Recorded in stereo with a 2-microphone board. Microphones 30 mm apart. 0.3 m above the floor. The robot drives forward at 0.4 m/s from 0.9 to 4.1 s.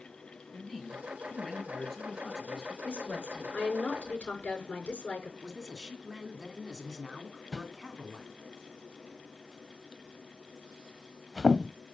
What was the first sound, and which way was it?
A man speaking, 15° left (ahead or behind).